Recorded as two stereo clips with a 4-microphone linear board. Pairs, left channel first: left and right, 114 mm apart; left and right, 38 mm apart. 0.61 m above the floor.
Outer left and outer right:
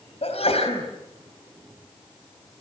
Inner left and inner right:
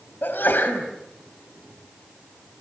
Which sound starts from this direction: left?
A sneeze, at 0.2 s.